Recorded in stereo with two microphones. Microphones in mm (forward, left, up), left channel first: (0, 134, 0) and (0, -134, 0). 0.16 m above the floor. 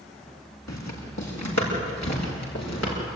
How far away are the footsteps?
About 8 m.